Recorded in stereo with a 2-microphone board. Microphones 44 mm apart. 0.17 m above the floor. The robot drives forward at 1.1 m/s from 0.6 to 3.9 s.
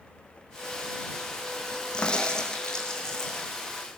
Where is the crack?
20° left (ahead or behind), 3 m; by 3.5 s 15° left (ahead or behind), 4.5 m.